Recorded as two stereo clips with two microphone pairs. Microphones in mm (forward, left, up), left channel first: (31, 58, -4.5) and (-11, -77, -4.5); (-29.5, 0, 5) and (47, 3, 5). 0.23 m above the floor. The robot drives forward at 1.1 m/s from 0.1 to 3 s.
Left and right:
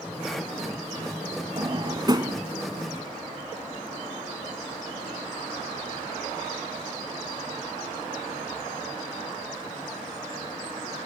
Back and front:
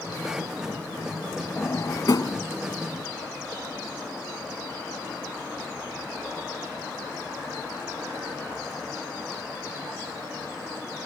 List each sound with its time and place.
1.6 s a drawer: 130° right; by 2.4 s 165° right